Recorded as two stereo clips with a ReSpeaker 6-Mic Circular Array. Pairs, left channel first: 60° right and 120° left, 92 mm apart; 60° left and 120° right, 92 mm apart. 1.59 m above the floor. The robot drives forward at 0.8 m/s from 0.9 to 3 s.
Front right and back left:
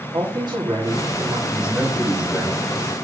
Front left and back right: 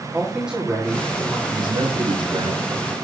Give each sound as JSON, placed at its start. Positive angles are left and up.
{"t": 0.1, "sound": "a man speaking", "azimuth_deg": 160, "distance_m": 3.0}
{"t": 1.5, "sound": "a man speaking", "azimuth_deg": -160, "distance_m": 2.0}